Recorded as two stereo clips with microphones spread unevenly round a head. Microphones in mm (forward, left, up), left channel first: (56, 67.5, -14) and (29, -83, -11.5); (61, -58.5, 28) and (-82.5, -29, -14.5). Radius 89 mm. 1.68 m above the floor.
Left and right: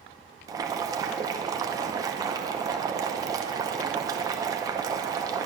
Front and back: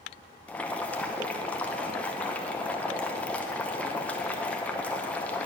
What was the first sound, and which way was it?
Boiling, 55° right.